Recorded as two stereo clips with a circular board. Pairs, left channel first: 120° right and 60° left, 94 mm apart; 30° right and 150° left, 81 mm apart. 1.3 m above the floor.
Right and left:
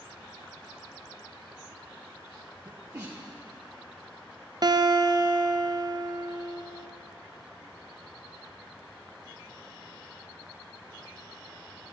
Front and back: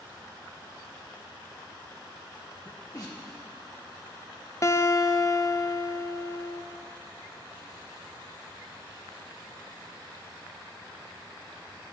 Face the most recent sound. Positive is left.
turn(degrees=20)